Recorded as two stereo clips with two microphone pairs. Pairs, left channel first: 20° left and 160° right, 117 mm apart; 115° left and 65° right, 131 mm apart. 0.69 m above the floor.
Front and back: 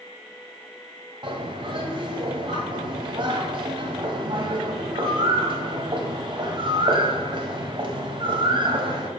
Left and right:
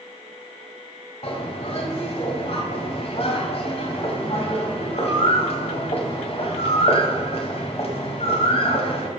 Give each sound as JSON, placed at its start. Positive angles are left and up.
{"t": 1.2, "sound": "a bird", "azimuth_deg": 155, "distance_m": 1.5}